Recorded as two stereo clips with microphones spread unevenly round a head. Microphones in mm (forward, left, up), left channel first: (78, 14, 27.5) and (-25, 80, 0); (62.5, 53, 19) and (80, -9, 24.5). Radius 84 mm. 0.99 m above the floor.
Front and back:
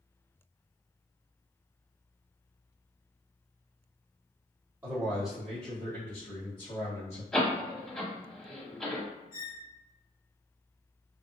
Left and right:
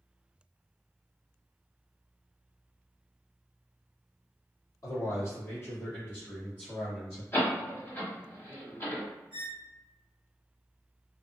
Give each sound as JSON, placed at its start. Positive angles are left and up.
{"t": 4.8, "sound": "a man speaking", "azimuth_deg": 85, "distance_m": 1.2}
{"t": 7.3, "sound": "a door slam", "azimuth_deg": 50, "distance_m": 1.3}
{"t": 9.3, "sound": "a squeak", "azimuth_deg": -10, "distance_m": 1.2}